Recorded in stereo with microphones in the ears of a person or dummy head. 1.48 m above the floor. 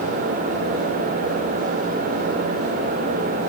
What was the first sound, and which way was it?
Only background noise.